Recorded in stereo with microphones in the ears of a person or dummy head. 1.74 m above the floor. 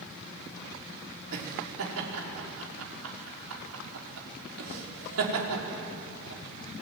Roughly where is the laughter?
Right.